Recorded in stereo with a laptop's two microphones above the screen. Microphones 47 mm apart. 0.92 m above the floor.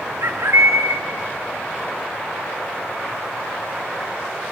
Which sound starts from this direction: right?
A bird, at 0.2 s.